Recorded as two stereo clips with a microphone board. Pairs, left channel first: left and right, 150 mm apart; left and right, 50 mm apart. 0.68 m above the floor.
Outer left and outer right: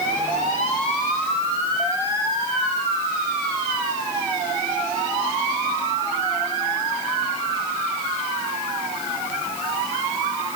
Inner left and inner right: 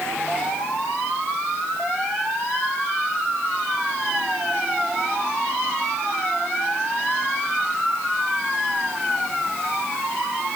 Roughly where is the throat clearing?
No throat clearing in this recording.